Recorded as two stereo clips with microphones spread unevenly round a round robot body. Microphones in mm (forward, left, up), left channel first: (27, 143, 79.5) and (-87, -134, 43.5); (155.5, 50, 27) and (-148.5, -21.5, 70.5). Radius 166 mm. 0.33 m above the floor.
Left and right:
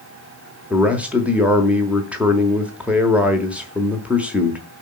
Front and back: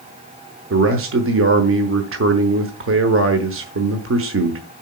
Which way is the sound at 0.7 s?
175° left.